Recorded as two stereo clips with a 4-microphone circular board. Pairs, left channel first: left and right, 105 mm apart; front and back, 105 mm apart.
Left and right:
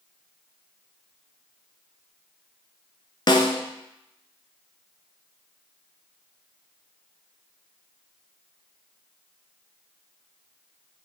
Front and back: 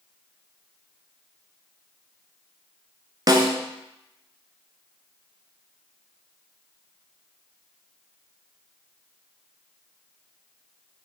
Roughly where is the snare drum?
Behind left.